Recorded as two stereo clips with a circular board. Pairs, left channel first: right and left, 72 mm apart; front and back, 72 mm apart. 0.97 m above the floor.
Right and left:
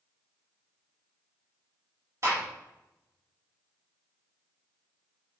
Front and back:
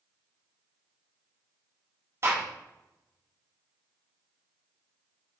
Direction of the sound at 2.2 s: 130° left.